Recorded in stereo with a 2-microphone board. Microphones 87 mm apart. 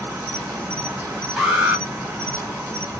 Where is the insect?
10° right (ahead or behind), 1.6 m.